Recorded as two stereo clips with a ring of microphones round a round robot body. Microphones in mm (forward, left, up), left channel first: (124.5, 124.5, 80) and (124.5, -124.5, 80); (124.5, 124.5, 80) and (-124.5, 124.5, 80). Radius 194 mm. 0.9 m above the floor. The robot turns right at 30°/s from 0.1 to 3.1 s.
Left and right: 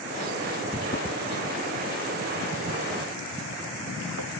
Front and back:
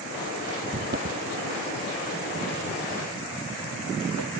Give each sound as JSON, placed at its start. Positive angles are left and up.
{"t": 0.7, "sound": "footsteps", "azimuth_deg": 145}